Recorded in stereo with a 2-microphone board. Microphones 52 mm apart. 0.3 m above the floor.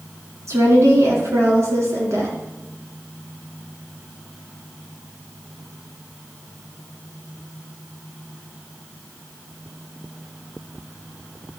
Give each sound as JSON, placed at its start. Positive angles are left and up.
{"t": 0.5, "sound": "a woman speaking", "side_deg": -65, "distance_m": 3.0}